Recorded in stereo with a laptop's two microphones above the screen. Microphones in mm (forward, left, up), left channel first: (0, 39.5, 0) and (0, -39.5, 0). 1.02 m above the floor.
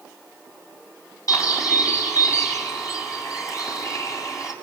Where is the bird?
45° left (ahead or behind), 6.5 m.